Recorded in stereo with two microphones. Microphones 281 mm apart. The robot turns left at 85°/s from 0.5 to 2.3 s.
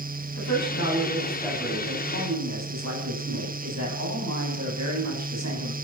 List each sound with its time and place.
0.4 s a woman speaking: 85° left, 8 m; by 5.7 s 70° right, 8 m